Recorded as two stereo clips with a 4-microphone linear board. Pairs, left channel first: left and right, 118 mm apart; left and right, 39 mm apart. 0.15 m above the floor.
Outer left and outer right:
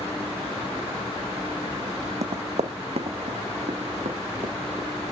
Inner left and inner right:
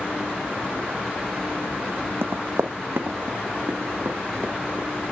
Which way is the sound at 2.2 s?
70° right (ahead or behind).